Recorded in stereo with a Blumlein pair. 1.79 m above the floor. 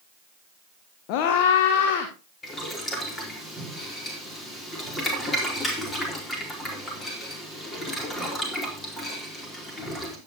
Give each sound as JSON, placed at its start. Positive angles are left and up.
{"t": 1.1, "sound": "a scream", "azimuth_deg": 45, "distance_m": 1.6}
{"t": 2.4, "sound": "boiling", "azimuth_deg": 15, "distance_m": 4.0}